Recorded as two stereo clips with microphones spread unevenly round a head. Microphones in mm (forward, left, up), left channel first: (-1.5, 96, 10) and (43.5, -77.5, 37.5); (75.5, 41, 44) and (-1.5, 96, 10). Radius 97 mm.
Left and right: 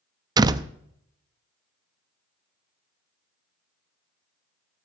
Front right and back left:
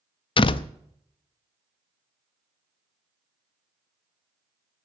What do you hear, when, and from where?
0.4 s a door slam: 5° right, 0.5 m